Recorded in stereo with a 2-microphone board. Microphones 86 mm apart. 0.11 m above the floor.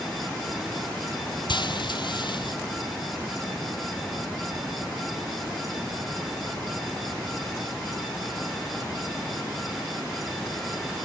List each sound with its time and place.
1.5 s frying: 70° left (ahead or behind), 0.9 m